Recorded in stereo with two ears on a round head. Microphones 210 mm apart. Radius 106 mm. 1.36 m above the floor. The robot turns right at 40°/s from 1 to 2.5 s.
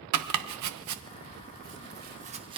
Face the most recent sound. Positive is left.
turn(degrees=-20)  # may be behind; listen again after turning